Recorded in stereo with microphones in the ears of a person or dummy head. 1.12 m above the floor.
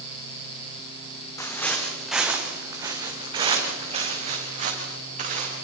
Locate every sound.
1.4 s footsteps: 15° left (ahead or behind), 3 m; by 5.5 s 45° right (ahead or behind), 7 m